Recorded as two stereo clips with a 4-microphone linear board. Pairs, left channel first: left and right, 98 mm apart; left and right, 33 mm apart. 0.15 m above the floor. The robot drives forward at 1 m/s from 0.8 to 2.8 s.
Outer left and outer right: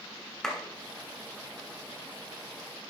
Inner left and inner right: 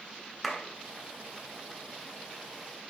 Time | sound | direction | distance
0.4 | a clap | 5° left (ahead or behind) | 1.6 m